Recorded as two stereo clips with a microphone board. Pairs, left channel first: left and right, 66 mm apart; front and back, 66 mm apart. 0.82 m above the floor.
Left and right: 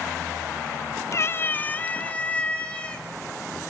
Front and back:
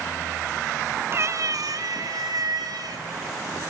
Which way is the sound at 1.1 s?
130° left.